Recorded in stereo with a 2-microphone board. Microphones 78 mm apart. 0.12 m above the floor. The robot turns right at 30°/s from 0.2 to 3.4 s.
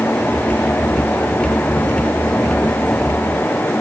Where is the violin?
I don't hear a violin.